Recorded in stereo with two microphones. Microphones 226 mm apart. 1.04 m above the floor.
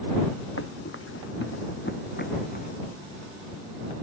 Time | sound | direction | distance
0.6 | running footsteps | 70° left (ahead or behind) | ?